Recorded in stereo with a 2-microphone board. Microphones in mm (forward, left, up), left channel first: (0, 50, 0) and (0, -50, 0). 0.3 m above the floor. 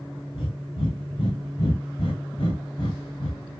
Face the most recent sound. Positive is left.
turn(degrees=70)  # may be behind; listen again after turning